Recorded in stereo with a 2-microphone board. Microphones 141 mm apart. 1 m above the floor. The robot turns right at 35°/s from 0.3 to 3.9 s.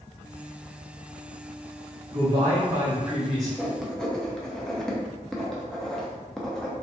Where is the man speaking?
45° right, 1.3 m; by 3.5 s 5° left, 1.3 m.